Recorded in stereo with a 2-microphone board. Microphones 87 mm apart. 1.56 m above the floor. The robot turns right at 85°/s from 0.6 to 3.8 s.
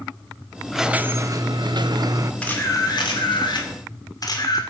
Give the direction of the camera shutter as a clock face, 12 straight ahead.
12 o'clock.